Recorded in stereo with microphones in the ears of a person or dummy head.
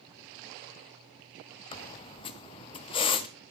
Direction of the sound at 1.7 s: 30° left (ahead or behind).